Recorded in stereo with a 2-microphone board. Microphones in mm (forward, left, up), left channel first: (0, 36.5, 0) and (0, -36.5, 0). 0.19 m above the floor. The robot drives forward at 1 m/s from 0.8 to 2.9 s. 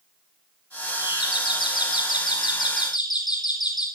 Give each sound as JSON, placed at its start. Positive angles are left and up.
{"t": 1.0, "sound": "a doorbell", "side_deg": 75, "distance_m": 9.5}